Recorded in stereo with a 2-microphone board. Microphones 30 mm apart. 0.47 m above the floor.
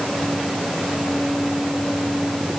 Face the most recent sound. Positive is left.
No sound to turn to.